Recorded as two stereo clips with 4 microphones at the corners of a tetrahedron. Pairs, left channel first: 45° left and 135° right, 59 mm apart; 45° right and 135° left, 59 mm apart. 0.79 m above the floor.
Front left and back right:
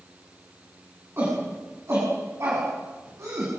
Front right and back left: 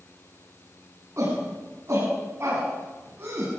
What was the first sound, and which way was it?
A shout, straight behind.